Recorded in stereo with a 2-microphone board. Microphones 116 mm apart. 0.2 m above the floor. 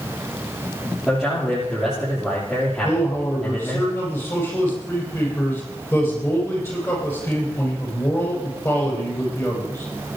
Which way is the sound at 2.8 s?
25° left (ahead or behind).